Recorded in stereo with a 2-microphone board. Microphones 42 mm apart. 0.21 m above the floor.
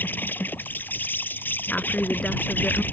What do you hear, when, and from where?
0.0 s an insect: 55° left (ahead or behind)
1.7 s a woman speaking: 30° left (ahead or behind)